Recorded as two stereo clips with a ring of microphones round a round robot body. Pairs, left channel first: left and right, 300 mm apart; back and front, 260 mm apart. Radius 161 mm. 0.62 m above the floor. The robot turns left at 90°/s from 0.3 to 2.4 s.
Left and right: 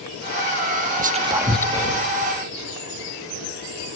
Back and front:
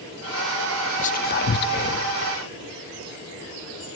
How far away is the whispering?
About 0.6 m.